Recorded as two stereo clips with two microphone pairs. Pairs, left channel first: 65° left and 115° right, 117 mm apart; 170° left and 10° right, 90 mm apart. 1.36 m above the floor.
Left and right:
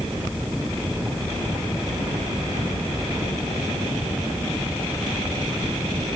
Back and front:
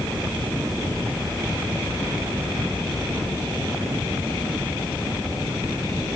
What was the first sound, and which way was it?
Only background noise.